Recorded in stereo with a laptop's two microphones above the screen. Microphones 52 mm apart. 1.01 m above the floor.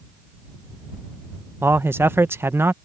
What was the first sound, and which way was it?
A man speaking, 45° right (ahead or behind).